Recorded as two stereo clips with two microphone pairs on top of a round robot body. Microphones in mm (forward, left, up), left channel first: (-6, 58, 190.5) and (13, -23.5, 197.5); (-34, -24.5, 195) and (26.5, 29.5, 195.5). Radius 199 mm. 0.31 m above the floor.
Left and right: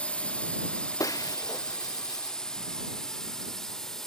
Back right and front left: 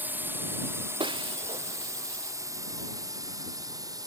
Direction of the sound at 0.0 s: 65° left.